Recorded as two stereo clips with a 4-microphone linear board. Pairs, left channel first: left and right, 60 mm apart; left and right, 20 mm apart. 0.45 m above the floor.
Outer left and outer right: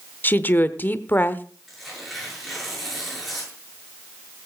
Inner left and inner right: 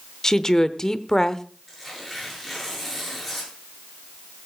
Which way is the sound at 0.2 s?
30° left (ahead or behind).